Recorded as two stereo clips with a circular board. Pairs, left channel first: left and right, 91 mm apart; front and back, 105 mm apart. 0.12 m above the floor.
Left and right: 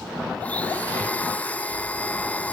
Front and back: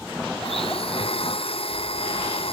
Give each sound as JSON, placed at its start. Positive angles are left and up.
{"t": 0.4, "sound": "a blender", "azimuth_deg": 15}